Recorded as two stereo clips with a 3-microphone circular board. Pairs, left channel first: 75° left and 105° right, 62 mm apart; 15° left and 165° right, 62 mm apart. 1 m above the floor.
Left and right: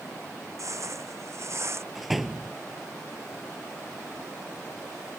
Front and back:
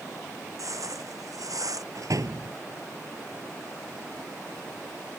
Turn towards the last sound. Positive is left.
turn(degrees=165)